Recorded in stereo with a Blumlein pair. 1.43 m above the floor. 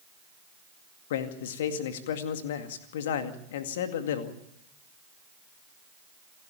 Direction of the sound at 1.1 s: 55° left.